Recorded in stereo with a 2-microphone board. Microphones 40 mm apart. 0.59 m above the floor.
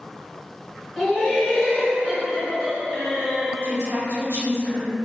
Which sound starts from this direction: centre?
Laughter, at 1.0 s.